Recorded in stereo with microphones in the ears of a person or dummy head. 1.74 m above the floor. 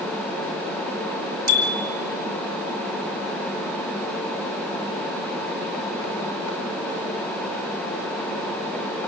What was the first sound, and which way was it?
A bicycle bell, 55° right (ahead or behind).